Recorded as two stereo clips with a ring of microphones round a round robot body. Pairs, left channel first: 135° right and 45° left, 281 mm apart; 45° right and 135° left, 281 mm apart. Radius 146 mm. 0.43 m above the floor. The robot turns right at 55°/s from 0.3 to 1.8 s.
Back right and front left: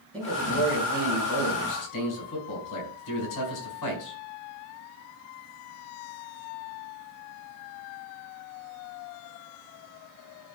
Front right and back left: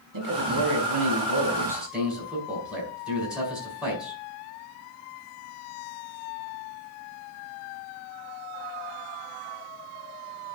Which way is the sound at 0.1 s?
140° left.